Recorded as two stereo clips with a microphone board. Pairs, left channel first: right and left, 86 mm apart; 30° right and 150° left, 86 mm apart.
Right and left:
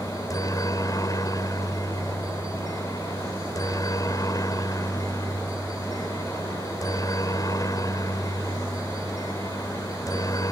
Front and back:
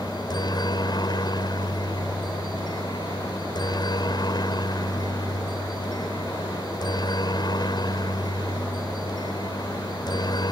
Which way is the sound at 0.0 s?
50° right.